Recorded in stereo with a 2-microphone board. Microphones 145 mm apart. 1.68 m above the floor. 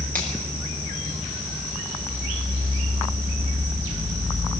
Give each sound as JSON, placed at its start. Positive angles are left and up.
{"t": 0.1, "sound": "a finger snap", "side_deg": -80, "distance_m": 7.0}